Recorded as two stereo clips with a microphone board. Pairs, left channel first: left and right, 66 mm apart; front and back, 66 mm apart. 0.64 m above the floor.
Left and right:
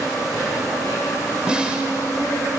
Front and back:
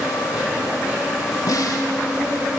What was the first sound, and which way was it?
An insect, 100° right.